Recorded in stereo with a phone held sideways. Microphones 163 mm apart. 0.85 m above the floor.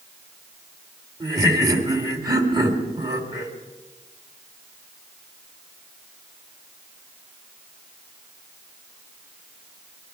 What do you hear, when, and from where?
1.2 s laughter: 25° right (ahead or behind), 2 m